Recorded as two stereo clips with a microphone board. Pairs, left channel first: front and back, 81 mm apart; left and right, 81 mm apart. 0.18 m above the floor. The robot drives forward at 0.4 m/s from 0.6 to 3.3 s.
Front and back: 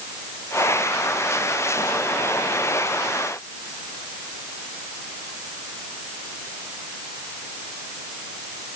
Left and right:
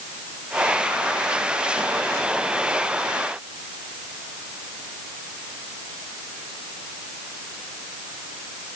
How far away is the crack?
No crack in this recording.